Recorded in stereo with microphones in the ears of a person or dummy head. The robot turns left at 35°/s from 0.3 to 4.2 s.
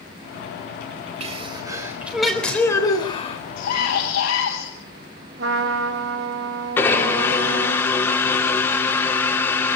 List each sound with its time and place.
1.2 s a sneeze: 140° right, 4 m; by 3.4 s 140° left, 4 m
3.6 s a scream: 65° left (ahead or behind), 8 m; by 4.7 s 85° left, 8 m
5.4 s a trumpet: 75° right (ahead or behind), 3.5 m
6.8 s a blender: 10° left (ahead or behind), 3.5 m